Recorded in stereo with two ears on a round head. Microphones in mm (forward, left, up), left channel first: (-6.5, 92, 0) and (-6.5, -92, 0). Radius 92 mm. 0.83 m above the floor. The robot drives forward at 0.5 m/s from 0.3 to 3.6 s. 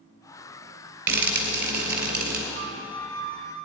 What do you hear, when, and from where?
1.1 s frying: 65° right (ahead or behind), 2.5 m; by 2.4 s 50° right (ahead or behind), 2.5 m
2.5 s a flute: 35° right (ahead or behind), 2 m; by 3.5 s 30° right (ahead or behind), 2.5 m